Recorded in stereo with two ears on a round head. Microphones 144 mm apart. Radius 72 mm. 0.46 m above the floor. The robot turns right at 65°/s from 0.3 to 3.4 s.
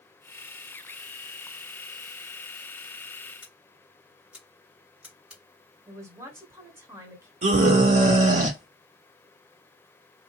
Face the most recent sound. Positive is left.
turn(degrees=-50)  # may be behind; listen again after turning